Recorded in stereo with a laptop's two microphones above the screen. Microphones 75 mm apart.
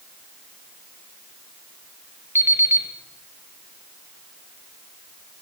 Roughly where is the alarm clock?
Right.